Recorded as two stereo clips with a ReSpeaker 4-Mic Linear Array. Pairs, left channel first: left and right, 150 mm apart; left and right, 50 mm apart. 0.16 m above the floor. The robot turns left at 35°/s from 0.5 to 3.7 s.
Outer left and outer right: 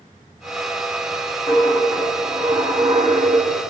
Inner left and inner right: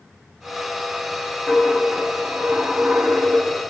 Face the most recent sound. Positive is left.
turn(degrees=-50)